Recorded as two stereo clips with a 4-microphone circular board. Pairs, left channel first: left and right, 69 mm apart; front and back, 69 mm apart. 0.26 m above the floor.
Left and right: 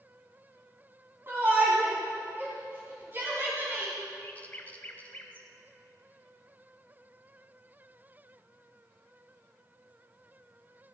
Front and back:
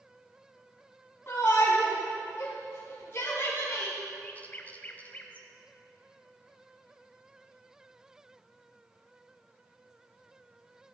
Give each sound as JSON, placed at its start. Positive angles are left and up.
{"t": 1.3, "sound": "a shout", "azimuth_deg": -45, "distance_m": 2.0}
{"t": 4.2, "sound": "a bird", "azimuth_deg": 45, "distance_m": 1.1}